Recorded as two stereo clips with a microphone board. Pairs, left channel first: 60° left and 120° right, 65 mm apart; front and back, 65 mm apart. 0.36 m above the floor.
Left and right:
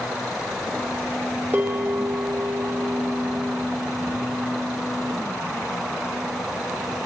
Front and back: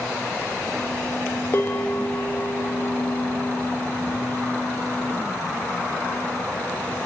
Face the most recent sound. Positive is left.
turn(degrees=-60)